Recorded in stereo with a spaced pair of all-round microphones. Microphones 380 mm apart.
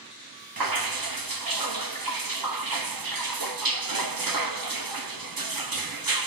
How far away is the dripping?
About 0.9 m.